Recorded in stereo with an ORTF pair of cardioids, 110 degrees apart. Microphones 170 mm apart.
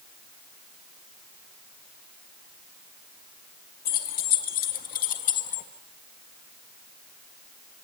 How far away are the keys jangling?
About 2.5 m.